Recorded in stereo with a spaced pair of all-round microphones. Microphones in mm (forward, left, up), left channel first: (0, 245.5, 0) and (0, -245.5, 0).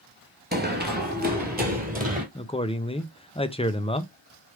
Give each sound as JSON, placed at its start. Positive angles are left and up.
{"t": 0.5, "sound": "running footsteps", "side_deg": -20, "distance_m": 1.1}
{"t": 2.4, "sound": "a man speaking", "side_deg": 10, "distance_m": 0.6}